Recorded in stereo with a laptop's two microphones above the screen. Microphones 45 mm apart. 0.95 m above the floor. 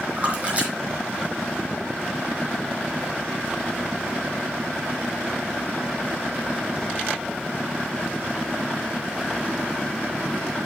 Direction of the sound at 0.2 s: 30° right (ahead or behind).